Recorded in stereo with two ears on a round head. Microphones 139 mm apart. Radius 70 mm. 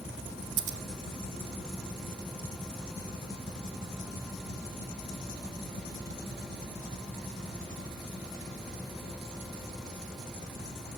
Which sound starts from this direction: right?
Scissors, at 0.6 s.